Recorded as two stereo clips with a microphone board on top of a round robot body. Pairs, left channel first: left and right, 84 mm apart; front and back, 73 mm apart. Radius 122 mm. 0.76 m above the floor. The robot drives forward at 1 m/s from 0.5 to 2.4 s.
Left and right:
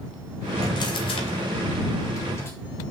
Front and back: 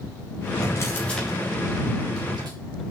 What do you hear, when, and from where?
0.6 s a drawer: 45° left, 1.0 m; by 2.5 s 150° left, 1.4 m